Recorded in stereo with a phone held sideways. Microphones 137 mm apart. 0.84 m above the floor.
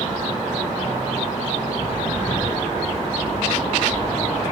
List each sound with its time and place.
1.8 s footsteps: 20° right (ahead or behind), 1.6 m; by 4.4 s 10° left (ahead or behind), 3.5 m